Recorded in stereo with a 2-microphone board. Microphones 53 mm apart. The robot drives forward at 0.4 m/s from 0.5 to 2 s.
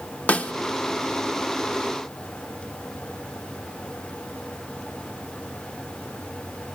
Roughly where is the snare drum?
Left.